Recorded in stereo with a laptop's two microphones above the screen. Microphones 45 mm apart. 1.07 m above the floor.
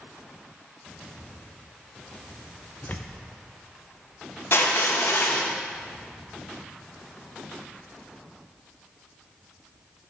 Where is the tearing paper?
35° left (ahead or behind), 0.7 m.